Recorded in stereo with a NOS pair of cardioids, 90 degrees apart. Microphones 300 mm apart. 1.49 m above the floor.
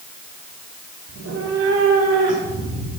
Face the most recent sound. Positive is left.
turn(degrees=-60)